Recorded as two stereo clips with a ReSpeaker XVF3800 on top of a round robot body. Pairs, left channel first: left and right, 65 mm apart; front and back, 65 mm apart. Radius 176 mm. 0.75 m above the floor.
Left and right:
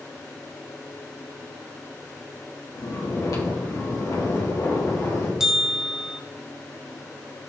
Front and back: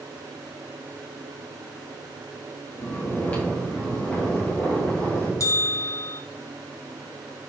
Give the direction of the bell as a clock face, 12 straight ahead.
12 o'clock.